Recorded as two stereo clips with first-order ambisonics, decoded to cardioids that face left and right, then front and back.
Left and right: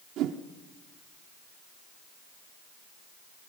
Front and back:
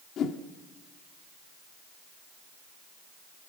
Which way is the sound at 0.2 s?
50° right.